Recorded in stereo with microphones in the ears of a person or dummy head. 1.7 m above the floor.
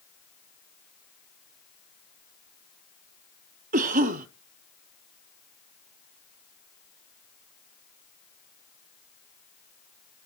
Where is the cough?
40° right (ahead or behind), 0.8 m.